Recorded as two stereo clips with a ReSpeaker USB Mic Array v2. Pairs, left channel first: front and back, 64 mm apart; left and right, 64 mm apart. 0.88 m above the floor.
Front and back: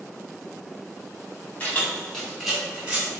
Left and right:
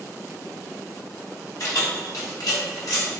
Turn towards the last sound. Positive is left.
turn(degrees=115)